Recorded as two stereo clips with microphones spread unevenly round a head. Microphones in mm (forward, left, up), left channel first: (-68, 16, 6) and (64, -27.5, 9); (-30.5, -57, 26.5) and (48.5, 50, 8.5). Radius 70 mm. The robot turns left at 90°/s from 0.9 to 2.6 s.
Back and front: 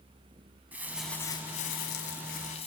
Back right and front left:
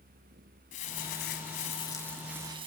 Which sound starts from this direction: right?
Crumpling, at 0.7 s.